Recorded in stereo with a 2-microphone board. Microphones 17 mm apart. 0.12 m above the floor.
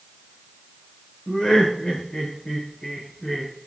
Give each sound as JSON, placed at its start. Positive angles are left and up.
{"t": 1.3, "sound": "laughter", "side_deg": 60, "distance_m": 6.5}